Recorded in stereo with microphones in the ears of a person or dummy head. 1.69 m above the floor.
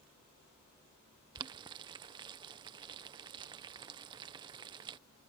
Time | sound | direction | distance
1.4 | boiling | 30° right (ahead or behind) | ?